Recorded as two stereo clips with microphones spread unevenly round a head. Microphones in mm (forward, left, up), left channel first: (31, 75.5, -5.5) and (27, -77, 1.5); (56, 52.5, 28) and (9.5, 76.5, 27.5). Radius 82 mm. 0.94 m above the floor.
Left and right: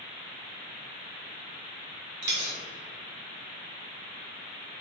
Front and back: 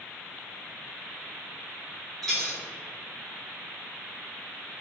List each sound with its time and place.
2.2 s a dropped coin: 115° right, 1.2 m